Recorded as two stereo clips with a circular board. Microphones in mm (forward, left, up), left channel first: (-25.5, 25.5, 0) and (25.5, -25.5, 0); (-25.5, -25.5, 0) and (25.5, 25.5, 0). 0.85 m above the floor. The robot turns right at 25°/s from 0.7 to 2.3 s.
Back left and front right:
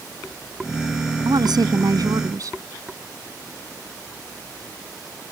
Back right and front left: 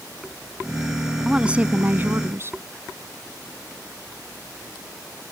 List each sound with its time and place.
1.2 s a woman speaking: 35° right; by 2.6 s 10° right